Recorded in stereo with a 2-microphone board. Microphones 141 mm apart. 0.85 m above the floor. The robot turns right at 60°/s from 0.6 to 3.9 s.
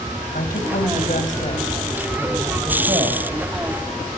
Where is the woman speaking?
80° left, 4 m; by 3.2 s 125° right, 4 m.